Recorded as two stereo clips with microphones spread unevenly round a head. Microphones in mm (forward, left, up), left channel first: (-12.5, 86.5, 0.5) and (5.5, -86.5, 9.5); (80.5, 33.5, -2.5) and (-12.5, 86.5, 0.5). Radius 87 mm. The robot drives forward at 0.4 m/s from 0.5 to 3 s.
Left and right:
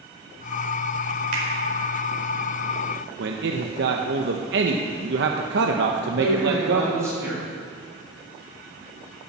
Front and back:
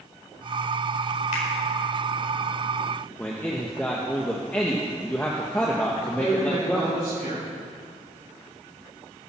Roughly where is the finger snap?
Ahead right.